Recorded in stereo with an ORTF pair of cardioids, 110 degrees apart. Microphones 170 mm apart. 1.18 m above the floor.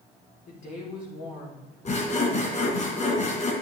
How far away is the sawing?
About 3 m.